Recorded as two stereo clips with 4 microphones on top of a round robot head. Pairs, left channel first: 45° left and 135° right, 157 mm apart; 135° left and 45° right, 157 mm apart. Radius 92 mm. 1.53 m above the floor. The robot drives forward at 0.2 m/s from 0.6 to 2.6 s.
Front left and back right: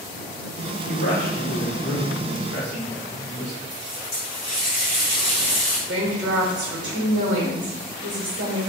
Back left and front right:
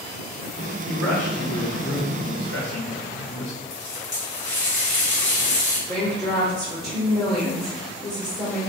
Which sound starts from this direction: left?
A man speaking, at 0.9 s.